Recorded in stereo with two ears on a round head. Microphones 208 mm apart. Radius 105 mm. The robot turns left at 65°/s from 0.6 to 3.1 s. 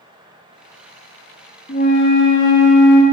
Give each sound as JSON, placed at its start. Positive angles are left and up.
{"t": 1.7, "sound": "a flute", "azimuth_deg": 150, "distance_m": 1.7}